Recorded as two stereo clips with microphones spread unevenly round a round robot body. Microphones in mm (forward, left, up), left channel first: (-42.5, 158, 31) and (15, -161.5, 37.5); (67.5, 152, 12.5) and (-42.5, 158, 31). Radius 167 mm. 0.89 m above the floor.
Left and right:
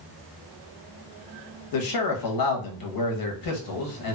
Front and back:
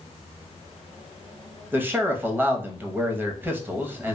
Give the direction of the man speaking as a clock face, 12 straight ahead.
9 o'clock.